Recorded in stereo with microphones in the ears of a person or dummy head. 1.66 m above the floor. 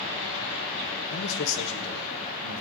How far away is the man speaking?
About 1.0 m.